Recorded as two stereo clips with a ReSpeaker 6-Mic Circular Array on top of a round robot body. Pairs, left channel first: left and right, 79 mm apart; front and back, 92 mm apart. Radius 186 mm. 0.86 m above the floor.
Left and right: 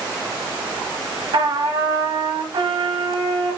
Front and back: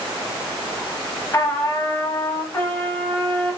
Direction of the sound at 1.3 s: 60° right.